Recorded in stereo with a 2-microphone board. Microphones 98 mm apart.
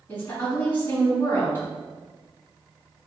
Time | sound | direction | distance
0.1 | a woman speaking | 20° left (ahead or behind) | 1.4 m